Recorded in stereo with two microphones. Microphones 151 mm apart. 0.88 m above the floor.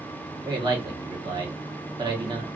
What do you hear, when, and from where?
0.5 s a man speaking: 30° right (ahead or behind), 1.0 m